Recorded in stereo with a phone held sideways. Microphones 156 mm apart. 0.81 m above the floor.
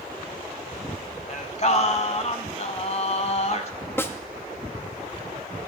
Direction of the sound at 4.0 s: 15° left (ahead or behind).